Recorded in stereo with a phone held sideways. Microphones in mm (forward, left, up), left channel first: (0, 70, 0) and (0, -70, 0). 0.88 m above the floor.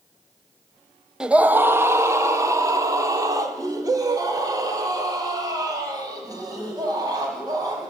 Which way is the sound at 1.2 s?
5° right (ahead or behind).